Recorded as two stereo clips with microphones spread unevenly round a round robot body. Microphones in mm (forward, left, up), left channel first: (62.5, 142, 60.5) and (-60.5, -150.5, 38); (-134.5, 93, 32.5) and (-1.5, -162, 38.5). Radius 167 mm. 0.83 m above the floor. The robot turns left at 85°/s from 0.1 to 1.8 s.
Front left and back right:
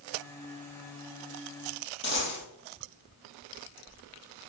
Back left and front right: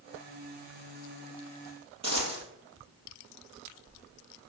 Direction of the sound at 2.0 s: 10° left.